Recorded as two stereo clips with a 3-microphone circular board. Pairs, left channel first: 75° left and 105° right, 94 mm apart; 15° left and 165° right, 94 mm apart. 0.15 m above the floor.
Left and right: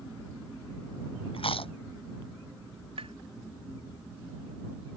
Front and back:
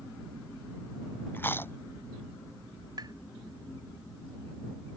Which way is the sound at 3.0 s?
120° right.